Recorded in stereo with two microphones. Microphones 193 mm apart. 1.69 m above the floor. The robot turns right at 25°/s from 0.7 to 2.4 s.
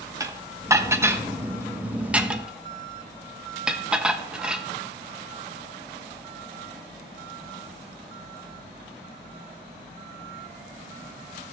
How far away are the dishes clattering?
About 0.7 m.